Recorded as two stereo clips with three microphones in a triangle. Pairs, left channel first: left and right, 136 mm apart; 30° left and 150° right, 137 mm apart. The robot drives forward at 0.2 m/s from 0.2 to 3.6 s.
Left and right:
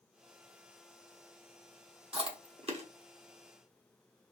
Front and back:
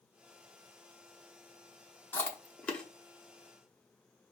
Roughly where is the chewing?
Ahead right.